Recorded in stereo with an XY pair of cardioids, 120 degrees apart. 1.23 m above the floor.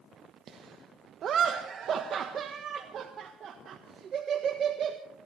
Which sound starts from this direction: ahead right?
Laughter, at 0.5 s.